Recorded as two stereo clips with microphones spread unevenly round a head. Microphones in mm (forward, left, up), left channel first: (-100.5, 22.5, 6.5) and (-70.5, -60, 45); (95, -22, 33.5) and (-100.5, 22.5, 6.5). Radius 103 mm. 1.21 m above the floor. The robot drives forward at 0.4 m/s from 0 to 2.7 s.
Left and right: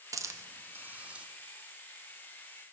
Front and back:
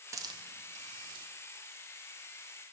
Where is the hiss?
140° right, 0.6 m; by 1.2 s 160° right, 0.9 m.